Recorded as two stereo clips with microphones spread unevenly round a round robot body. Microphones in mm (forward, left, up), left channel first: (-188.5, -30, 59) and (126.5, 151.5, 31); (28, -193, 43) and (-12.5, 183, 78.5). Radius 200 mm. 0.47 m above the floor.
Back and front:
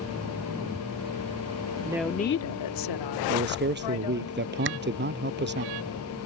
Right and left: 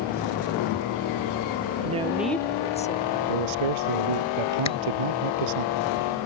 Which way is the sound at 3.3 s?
90° left.